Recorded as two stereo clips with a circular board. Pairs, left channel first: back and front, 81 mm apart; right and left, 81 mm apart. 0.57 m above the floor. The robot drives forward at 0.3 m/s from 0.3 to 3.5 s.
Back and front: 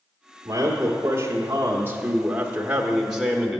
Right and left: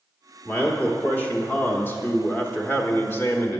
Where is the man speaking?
25° right, 1.3 m; by 3.6 s 95° right, 0.9 m.